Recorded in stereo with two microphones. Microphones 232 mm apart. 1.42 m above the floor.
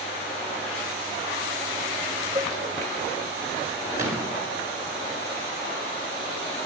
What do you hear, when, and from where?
2.4 s a cowbell: 20° right (ahead or behind), 2 m
4.0 s a gunshot: 15° right (ahead or behind), 7.5 m